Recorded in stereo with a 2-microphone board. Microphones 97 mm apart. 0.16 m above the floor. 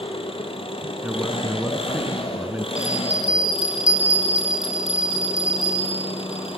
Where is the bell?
65° right (ahead or behind), 7 m.